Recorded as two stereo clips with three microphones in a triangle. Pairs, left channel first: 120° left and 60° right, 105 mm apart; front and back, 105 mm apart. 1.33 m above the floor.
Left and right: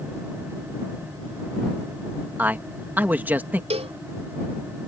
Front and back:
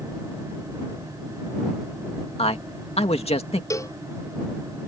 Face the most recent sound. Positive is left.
turn(degrees=-60)